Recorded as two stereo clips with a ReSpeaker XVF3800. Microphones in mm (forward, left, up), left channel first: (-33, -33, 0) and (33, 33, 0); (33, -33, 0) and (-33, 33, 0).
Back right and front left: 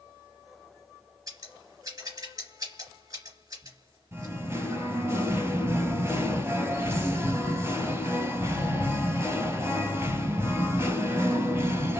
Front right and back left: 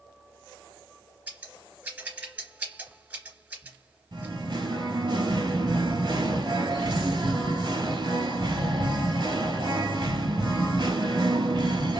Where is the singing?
105° left, 0.8 m.